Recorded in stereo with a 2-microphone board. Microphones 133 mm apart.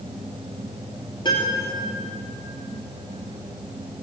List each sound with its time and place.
1.2 s a piano: 35° left (ahead or behind), 2.5 m